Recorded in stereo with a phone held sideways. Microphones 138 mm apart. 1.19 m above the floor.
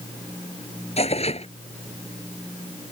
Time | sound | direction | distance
1.0 | tearing paper | 50° left (ahead or behind) | ?